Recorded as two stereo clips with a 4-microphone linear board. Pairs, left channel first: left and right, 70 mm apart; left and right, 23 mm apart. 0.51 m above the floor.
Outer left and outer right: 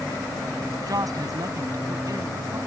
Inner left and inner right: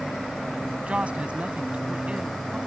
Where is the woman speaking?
60° right (ahead or behind).